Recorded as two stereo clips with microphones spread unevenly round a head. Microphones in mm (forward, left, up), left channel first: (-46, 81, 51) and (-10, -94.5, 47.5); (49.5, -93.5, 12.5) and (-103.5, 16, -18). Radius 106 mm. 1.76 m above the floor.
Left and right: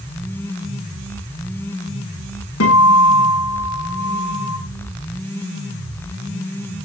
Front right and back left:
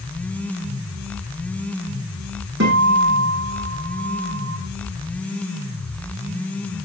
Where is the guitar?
100° left, 7.5 m.